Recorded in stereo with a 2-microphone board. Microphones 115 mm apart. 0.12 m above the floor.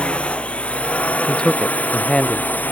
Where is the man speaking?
10° left (ahead or behind).